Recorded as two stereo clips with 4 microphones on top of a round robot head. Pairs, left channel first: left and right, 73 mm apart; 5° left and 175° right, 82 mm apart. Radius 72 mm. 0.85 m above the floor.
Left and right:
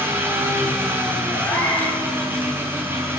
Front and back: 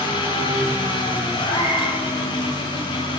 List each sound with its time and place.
0.0 s an engine running: 30° right, 7.5 m
1.4 s a cat meowing: 20° left, 7 m